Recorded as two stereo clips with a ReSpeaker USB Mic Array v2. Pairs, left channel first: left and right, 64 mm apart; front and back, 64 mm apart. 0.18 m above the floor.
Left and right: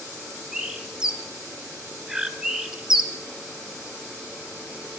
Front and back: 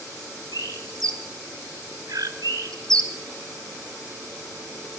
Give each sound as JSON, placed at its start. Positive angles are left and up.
{"t": 0.5, "sound": "a bird", "azimuth_deg": -165, "distance_m": 0.9}